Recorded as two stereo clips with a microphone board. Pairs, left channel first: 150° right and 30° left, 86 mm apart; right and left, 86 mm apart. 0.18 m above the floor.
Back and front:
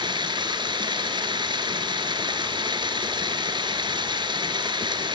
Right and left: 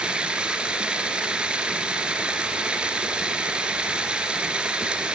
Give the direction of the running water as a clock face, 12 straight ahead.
12 o'clock.